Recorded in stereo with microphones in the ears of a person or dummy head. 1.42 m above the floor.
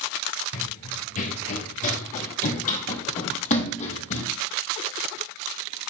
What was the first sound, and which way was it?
Running footsteps, 35° left (ahead or behind).